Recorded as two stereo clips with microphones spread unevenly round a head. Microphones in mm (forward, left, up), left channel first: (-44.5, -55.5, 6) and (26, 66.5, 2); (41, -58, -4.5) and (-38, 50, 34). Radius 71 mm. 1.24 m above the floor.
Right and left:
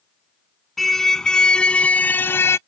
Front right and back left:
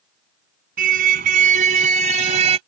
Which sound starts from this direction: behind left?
A car horn, at 0.8 s.